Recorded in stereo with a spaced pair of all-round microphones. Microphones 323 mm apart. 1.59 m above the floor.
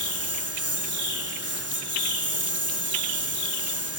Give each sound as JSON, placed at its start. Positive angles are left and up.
{"t": 0.0, "sound": "a lawn mower", "side_deg": -45}